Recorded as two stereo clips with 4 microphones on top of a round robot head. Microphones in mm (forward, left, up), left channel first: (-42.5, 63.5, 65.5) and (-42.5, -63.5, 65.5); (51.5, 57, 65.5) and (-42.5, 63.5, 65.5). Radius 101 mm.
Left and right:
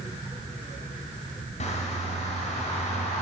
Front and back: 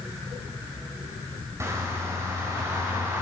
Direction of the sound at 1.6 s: 115° left.